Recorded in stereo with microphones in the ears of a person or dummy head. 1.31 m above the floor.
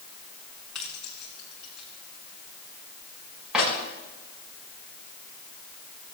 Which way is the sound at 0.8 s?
5° left (ahead or behind).